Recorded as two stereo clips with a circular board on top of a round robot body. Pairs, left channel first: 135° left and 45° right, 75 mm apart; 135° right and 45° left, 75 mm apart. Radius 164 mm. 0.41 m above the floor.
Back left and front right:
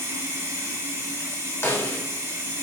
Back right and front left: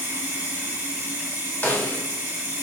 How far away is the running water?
About 1.4 m.